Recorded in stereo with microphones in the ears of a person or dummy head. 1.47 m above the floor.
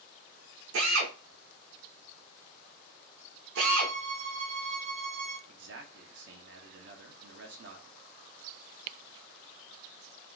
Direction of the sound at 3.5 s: 65° right (ahead or behind).